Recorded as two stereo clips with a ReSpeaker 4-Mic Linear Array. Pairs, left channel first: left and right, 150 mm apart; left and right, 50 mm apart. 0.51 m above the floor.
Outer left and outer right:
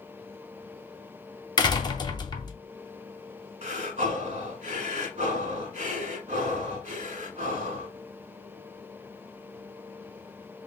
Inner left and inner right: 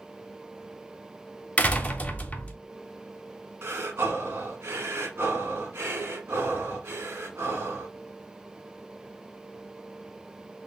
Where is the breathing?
60° right (ahead or behind), 1.0 m.